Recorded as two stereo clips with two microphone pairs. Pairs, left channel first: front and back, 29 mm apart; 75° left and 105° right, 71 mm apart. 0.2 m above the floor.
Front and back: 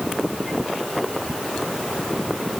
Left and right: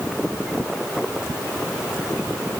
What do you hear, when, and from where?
Only background noise.